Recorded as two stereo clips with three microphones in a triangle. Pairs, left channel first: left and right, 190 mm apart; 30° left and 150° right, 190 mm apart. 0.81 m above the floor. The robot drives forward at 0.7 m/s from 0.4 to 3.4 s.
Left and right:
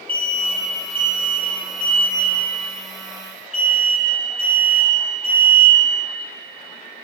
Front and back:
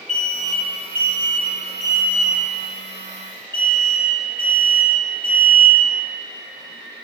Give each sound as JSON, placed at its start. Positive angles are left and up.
{"t": 0.1, "sound": "an alarm", "azimuth_deg": 70, "distance_m": 1.4}